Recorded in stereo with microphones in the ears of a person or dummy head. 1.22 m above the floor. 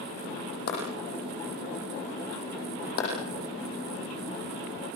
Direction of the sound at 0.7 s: 55° left (ahead or behind).